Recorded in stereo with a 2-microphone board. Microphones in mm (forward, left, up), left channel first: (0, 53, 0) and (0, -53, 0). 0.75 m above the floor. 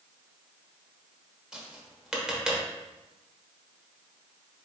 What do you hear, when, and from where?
1.5 s tapping: 5° right (ahead or behind), 0.9 m